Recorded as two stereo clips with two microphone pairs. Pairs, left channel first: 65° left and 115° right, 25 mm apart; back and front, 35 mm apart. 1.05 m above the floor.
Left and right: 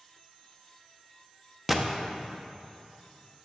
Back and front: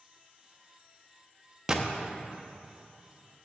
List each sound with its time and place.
1.7 s a gunshot: 40° right, 0.7 m